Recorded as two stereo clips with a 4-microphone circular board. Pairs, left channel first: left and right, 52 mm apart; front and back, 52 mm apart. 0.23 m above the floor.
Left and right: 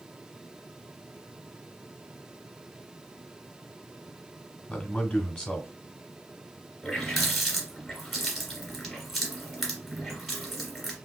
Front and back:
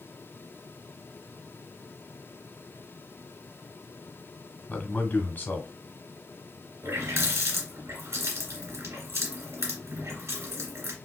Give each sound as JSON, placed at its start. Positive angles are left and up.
{"t": 4.7, "sound": "a man speaking", "azimuth_deg": 15, "distance_m": 1.2}
{"t": 6.8, "sound": "a running tap", "azimuth_deg": 180, "distance_m": 2.0}